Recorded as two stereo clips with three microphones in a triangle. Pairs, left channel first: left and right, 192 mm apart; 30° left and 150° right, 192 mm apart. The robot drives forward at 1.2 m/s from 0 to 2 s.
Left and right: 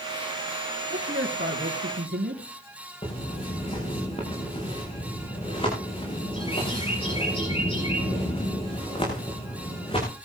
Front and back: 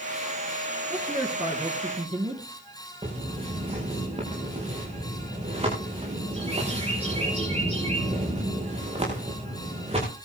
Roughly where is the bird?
Behind left.